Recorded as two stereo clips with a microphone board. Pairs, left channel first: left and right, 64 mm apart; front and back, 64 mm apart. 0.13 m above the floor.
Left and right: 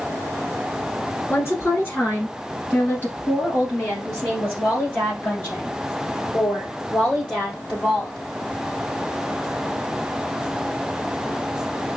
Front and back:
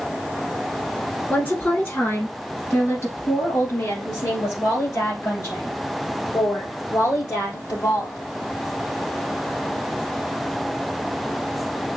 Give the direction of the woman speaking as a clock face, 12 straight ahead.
10 o'clock.